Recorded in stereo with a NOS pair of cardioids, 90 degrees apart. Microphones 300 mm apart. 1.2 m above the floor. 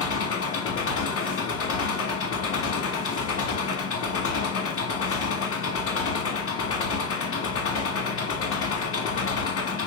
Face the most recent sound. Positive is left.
turn(degrees=50)